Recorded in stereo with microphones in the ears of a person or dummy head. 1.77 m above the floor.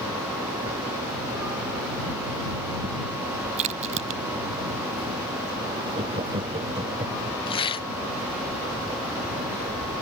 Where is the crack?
40° right (ahead or behind).